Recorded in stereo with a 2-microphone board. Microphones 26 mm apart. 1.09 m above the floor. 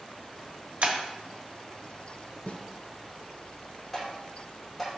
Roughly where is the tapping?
Centre.